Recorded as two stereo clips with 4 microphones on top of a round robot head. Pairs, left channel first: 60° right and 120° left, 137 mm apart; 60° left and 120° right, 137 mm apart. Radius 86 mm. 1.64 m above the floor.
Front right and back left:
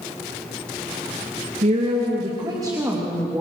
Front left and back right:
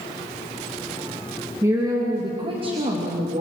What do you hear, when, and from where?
1.6 s a woman speaking: 165° left, 2.5 m; by 3.4 s 160° right, 3.5 m